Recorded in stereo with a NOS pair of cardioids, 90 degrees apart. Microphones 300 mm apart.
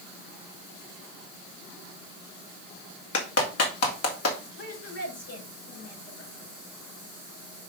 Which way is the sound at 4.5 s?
45° left.